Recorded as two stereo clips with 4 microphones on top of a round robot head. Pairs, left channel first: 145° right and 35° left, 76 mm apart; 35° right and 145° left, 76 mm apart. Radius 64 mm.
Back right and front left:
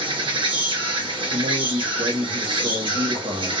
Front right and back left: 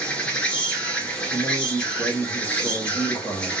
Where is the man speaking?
35° left, 1.6 m.